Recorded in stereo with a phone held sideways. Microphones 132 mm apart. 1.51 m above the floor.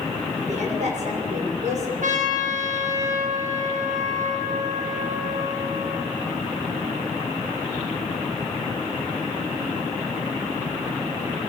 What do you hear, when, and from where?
0.4 s a woman speaking: 65° right (ahead or behind), 6.5 m
2.0 s a trumpet: 80° right, 6.5 m